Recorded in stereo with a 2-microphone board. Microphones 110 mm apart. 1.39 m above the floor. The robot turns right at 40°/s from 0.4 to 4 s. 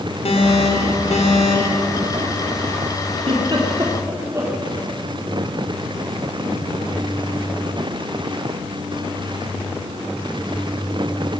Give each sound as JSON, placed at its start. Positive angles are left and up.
{"t": 0.2, "sound": "an alarm", "azimuth_deg": 65, "distance_m": 4.0}
{"t": 3.2, "sound": "a giggle", "side_deg": -60, "distance_m": 4.0}